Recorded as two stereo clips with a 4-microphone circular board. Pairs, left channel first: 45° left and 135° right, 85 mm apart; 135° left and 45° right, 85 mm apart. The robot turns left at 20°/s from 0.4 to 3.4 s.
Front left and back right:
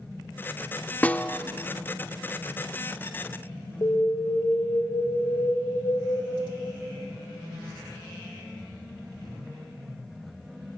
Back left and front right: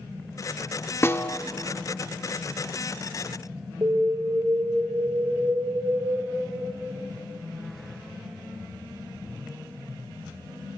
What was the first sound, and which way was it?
A snare drum, 100° left.